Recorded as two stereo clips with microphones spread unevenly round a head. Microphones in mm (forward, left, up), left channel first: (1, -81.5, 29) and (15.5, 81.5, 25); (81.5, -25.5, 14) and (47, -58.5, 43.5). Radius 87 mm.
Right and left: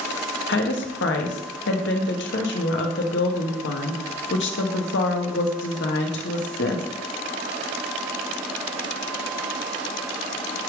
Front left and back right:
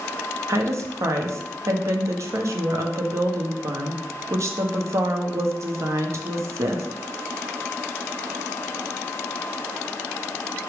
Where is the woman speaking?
110° right, 1.2 m.